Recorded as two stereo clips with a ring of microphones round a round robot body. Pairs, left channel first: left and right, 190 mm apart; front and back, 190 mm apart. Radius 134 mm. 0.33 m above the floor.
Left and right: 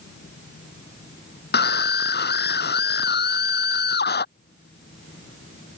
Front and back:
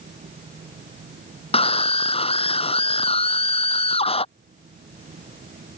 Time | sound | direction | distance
1.5 | a scream | 60° left | ?